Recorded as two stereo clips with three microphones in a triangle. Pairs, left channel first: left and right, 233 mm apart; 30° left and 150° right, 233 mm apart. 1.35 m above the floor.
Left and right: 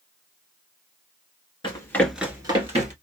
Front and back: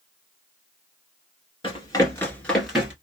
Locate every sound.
1.6 s running footsteps: 60° left, 1.4 m; by 2.9 s 70° right, 1.6 m